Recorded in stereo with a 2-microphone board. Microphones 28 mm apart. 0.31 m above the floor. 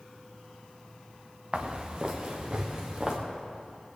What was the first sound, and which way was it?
Footsteps, 30° right (ahead or behind).